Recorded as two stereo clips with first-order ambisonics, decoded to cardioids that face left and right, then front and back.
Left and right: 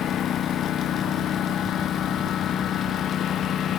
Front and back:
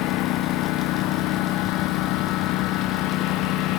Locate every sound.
0.0 s a lawn mower: 35° left